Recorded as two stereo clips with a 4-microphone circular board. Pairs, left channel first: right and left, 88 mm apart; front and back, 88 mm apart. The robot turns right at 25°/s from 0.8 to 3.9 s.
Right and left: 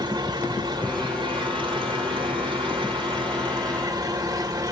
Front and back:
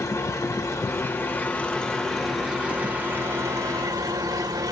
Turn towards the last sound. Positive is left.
turn(degrees=135)